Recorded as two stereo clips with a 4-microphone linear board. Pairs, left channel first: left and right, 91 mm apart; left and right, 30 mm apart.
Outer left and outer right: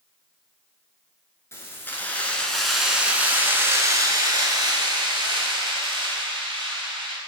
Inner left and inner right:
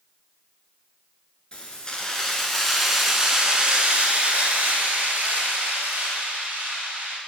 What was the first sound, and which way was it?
Keys jangling, 30° left (ahead or behind).